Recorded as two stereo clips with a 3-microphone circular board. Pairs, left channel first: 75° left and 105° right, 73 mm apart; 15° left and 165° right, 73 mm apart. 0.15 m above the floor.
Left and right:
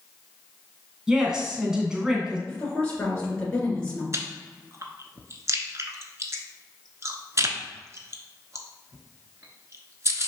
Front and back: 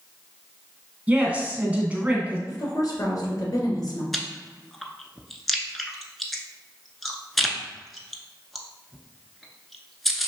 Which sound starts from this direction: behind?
A woman speaking, at 1.1 s.